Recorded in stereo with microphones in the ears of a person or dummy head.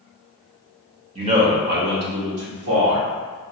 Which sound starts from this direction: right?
A man speaking, at 1.1 s.